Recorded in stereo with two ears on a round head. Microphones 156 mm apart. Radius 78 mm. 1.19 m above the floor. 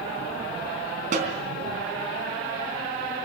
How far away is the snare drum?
About 3.5 m.